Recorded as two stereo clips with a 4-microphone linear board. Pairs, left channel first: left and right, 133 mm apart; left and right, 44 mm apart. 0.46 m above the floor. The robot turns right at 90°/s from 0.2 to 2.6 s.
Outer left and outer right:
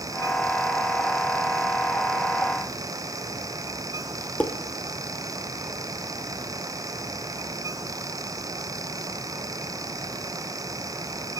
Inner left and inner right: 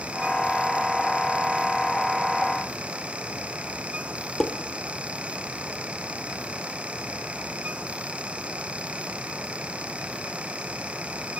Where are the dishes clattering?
10° left (ahead or behind), 0.6 m.